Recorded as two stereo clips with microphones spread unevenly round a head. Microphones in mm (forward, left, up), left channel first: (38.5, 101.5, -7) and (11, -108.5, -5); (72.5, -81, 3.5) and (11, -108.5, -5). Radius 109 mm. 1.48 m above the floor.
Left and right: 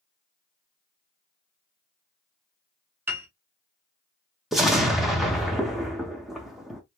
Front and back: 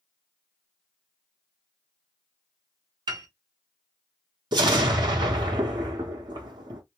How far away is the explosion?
About 0.6 m.